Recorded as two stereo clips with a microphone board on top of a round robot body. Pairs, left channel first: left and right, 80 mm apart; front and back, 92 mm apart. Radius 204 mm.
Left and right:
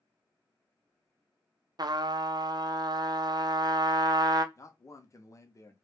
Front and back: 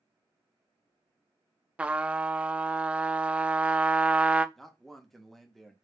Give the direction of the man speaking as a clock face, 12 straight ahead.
9 o'clock.